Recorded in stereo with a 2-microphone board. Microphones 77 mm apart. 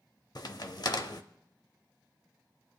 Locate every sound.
0.3 s a crack: 55° left (ahead or behind), 0.7 m